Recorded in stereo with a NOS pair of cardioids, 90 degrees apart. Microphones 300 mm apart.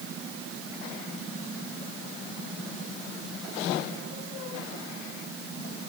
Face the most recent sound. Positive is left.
No sound to turn to.